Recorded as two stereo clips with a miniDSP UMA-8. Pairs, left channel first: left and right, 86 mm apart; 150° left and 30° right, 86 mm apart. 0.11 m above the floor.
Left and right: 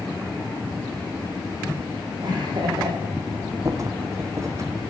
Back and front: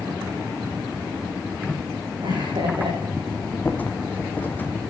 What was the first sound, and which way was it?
Laughter, 55° right.